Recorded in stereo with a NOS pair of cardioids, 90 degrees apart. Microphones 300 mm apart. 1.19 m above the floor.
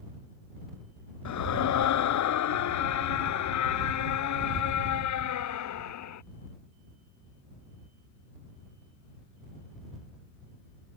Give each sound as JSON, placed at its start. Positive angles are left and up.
{"t": 1.2, "sound": "a scream", "azimuth_deg": 70}